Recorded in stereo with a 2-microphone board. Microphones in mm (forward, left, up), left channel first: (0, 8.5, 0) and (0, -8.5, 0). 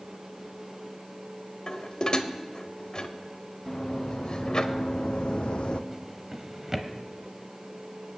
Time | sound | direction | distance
1.7 | dishes clattering | 50° left (ahead or behind) | 1.0 m
3.7 | running footsteps | 35° left (ahead or behind) | 3 m
5.9 | a drawer | 15° right (ahead or behind) | 1.2 m